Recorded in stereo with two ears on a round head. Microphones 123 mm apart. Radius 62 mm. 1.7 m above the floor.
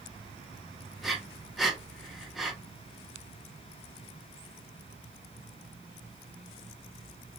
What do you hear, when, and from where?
1.0 s breathing: centre (ahead or behind), 0.8 m